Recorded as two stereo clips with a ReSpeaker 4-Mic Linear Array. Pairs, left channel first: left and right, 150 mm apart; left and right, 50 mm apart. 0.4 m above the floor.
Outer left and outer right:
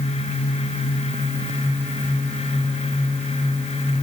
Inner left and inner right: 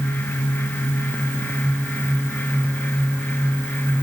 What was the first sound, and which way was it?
Only background noise.